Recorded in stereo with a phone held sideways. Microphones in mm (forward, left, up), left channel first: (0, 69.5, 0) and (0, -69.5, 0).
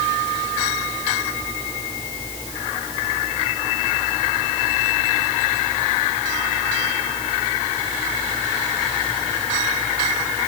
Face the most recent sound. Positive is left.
No sound to turn to.